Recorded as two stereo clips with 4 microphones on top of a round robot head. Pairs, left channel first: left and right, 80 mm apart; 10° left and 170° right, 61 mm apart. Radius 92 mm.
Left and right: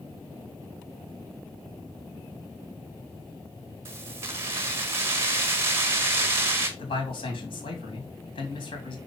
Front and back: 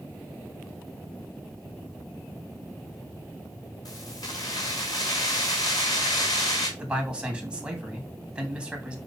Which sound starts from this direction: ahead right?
Keys jangling, at 3.9 s.